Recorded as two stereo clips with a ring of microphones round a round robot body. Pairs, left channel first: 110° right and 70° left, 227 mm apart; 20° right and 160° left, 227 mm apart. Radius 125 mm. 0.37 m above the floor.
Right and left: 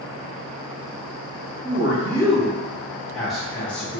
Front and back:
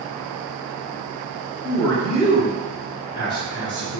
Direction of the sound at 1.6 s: 35° left.